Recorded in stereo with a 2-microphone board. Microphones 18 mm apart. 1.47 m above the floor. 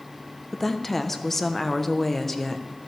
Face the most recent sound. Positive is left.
turn(degrees=15)  # may be behind; listen again after turning